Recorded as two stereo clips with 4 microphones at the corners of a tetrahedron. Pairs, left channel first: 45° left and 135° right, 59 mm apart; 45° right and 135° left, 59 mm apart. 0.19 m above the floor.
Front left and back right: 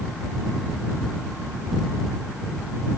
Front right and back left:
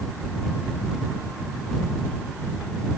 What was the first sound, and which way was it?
Only background noise.